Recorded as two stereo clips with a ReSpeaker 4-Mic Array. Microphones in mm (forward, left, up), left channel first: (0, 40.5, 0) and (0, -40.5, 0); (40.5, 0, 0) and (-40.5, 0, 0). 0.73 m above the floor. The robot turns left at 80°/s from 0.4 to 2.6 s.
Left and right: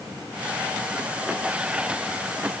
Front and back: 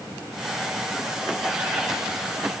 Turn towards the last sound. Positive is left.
No sound to turn to.